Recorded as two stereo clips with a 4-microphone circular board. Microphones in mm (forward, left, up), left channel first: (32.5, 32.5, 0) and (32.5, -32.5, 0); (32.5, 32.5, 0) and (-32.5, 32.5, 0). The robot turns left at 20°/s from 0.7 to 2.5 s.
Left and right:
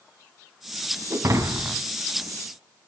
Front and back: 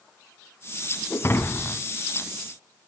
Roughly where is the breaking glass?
Ahead right.